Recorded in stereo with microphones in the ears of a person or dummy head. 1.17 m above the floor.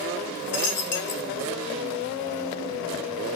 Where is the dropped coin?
40° left (ahead or behind), 1.2 m.